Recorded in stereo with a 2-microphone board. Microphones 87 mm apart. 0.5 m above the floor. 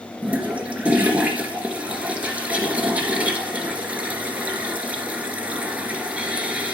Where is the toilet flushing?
15° right (ahead or behind), 1.3 m.